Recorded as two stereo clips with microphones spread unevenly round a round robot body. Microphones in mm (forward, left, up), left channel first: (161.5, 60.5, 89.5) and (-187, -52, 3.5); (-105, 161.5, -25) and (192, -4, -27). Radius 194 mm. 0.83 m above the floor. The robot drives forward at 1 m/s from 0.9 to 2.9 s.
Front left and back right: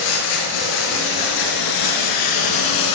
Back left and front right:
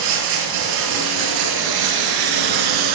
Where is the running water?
10° right, 5.5 m; by 2.9 s 15° right, 3.5 m.